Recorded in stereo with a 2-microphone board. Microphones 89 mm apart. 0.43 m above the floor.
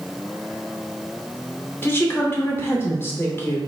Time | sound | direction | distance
1.8 | a woman speaking | 25° left (ahead or behind) | 0.8 m